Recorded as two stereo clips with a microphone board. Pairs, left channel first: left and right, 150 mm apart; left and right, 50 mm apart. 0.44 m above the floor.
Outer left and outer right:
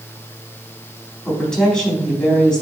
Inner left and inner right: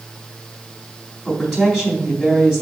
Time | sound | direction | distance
1.2 | a woman speaking | 5° left (ahead or behind) | 3.5 m